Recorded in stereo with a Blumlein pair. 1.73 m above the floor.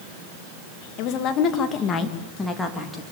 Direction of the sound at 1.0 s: 40° left.